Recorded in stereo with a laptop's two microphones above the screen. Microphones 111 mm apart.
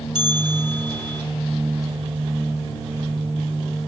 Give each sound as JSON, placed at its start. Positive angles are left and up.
{"t": 0.1, "sound": "a bell", "side_deg": 55, "distance_m": 1.1}